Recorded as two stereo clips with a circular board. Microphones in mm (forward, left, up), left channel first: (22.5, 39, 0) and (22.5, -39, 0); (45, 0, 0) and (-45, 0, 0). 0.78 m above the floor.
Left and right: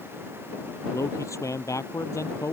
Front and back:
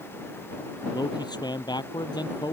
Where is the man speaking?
40° left.